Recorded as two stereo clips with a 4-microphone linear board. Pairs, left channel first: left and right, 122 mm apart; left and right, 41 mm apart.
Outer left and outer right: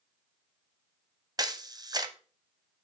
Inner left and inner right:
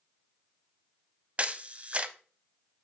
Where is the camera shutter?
35° right (ahead or behind), 0.6 m.